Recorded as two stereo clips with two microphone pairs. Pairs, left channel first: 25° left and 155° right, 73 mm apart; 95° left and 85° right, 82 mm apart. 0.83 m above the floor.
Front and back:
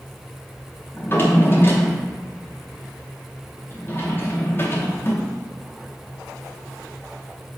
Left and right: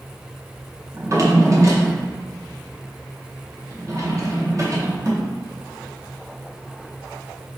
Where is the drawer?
35° right, 0.5 m.